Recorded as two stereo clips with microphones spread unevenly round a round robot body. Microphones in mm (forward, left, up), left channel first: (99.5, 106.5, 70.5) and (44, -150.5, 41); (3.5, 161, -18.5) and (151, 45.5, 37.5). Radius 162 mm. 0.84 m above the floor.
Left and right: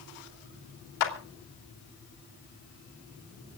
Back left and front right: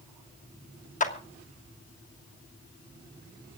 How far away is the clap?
About 3 m.